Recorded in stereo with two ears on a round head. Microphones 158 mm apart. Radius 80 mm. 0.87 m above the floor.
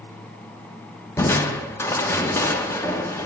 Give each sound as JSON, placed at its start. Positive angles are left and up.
{"t": 1.2, "sound": "crushing", "side_deg": 15, "distance_m": 0.9}